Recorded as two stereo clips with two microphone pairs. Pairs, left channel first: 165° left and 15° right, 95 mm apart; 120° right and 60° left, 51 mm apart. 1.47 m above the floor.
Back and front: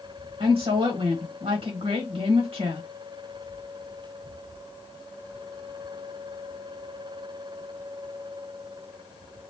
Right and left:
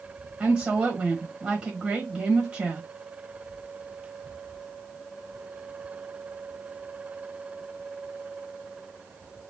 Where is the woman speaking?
5° right, 1.3 m.